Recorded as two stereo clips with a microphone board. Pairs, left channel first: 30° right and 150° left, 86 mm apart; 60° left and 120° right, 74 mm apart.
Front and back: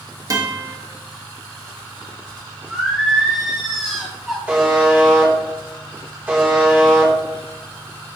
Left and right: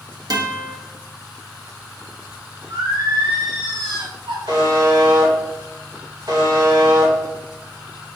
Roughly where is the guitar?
Behind.